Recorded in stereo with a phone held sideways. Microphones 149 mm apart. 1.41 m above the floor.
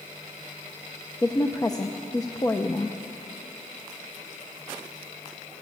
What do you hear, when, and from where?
1.2 s a woman speaking: 25° left (ahead or behind), 0.7 m